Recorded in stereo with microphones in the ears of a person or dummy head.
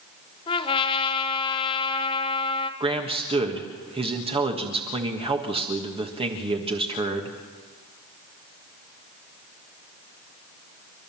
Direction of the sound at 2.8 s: 25° right (ahead or behind).